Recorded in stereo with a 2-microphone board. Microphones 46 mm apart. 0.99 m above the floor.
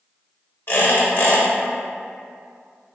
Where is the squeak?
50° left (ahead or behind), 1.0 m.